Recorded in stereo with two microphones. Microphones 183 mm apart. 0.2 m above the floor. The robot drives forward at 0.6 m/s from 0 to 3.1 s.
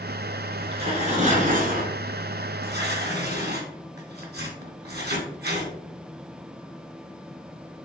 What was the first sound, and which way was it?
Tearing paper, 30° right (ahead or behind).